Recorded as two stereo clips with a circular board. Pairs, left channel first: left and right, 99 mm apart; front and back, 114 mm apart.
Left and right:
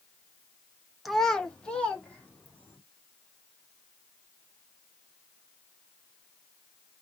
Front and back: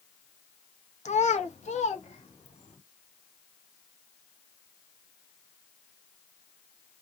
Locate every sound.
1.1 s a child speaking: straight ahead, 0.8 m; by 2.8 s 15° left, 2.5 m